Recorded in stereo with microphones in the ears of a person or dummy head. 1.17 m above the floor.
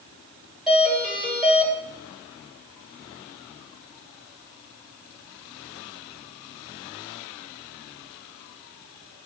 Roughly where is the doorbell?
Centre.